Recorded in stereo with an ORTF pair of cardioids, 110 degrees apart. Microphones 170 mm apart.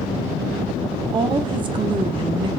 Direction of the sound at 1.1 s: 30° right.